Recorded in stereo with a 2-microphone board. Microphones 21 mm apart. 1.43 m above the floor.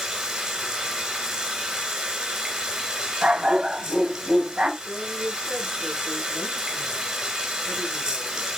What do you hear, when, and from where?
0.0 s running water: 45° right (ahead or behind), 2.5 m
3.2 s a dog barking: 50° right (ahead or behind), 7 m
4.8 s a woman speaking: 60° right (ahead or behind), 5.5 m